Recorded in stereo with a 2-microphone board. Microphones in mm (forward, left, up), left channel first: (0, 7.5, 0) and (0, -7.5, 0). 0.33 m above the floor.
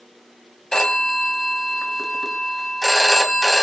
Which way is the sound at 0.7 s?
35° left (ahead or behind).